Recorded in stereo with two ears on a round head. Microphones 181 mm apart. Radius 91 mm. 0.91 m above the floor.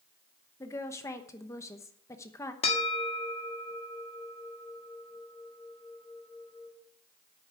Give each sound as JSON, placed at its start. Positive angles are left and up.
{"t": 0.6, "sound": "a woman speaking", "side_deg": 15, "distance_m": 0.9}
{"t": 2.6, "sound": "a bell", "side_deg": 30, "distance_m": 1.8}